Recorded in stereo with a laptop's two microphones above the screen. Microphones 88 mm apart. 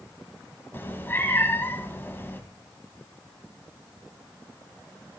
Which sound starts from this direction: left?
A cat meowing, at 0.7 s.